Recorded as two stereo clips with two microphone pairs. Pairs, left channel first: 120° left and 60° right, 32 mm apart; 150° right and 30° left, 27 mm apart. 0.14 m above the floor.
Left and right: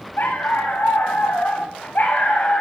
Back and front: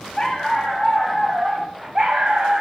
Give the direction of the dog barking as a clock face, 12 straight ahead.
8 o'clock.